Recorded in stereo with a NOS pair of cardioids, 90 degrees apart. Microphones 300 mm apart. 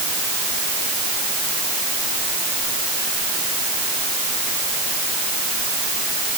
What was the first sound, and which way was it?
Only background noise.